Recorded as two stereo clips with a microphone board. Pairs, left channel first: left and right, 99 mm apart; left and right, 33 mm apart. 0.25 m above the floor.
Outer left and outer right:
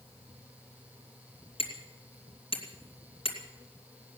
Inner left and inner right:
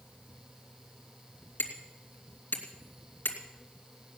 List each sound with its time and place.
1.6 s hammering: 65° left (ahead or behind), 3 m